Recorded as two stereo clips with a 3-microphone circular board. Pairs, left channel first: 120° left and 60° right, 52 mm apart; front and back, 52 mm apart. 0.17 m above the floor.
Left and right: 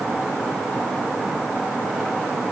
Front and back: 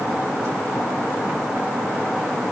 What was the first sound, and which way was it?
Only background noise.